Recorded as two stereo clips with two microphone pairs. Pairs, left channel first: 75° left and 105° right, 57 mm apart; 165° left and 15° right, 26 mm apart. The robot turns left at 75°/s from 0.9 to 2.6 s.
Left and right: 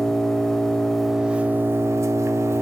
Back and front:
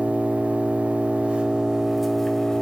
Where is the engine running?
10° right, 1.2 m; by 2.6 s 135° right, 1.2 m.